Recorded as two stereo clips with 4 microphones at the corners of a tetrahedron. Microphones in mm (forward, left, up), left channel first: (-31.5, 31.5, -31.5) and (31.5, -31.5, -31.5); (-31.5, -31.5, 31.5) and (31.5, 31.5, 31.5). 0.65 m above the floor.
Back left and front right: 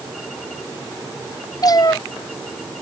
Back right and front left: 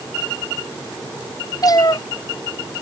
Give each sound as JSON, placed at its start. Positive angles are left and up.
{"t": 1.6, "sound": "a cat meowing", "azimuth_deg": 180}